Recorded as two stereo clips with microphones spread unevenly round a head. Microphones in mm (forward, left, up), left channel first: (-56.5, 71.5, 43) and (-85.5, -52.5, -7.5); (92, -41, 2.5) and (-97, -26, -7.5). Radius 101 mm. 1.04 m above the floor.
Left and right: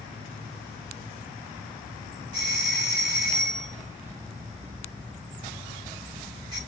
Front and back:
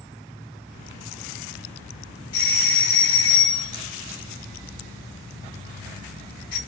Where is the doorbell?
50° right, 2.5 m.